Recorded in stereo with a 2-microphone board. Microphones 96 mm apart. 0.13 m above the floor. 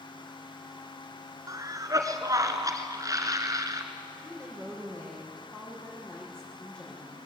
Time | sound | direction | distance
1.5 | a cough | 35° right (ahead or behind) | 2.0 m
4.2 | a woman speaking | 10° left (ahead or behind) | 7.5 m